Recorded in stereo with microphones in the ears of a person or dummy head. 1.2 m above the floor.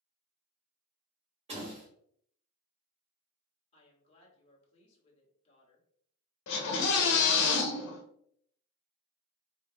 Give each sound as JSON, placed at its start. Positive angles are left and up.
{"t": 1.5, "sound": "a door slam", "side_deg": -35, "distance_m": 1.2}
{"t": 3.7, "sound": "a woman speaking", "side_deg": 35, "distance_m": 1.5}
{"t": 6.5, "sound": "a scream", "side_deg": 70, "distance_m": 1.1}